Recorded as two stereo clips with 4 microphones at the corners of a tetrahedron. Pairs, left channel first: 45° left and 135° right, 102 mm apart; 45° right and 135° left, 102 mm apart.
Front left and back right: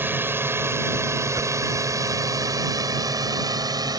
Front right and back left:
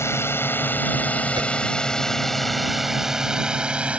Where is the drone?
85° right; by 4.0 s 155° right.